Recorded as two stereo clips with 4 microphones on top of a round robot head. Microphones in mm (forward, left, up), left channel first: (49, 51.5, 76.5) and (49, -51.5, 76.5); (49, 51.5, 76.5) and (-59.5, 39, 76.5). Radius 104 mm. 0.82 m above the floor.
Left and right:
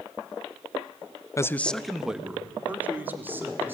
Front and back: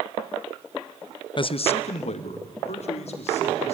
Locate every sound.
1.4 s a man speaking: 35° left, 0.7 m; by 3.8 s 20° right, 3 m